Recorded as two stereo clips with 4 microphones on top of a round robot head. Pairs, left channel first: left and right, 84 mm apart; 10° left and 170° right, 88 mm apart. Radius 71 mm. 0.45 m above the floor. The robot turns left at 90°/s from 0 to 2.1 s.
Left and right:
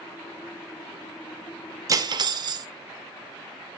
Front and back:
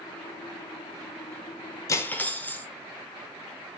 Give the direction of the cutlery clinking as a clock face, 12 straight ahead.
1 o'clock.